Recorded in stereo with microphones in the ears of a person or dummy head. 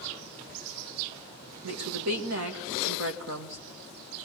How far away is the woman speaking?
About 2 m.